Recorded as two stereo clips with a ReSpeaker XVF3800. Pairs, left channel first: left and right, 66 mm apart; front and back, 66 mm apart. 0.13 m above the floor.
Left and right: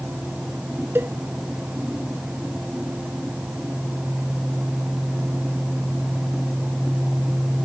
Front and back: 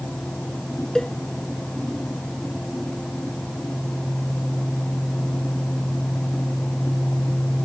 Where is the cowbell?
75° right.